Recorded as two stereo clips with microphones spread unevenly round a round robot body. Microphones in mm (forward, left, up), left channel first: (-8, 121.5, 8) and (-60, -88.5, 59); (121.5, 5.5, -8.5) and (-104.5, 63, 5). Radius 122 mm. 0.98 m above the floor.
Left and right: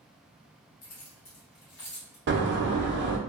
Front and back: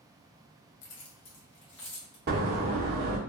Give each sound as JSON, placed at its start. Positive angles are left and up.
{"t": 0.8, "sound": "keys jangling", "azimuth_deg": 25, "distance_m": 0.7}
{"t": 2.3, "sound": "a door slam", "azimuth_deg": -145, "distance_m": 0.6}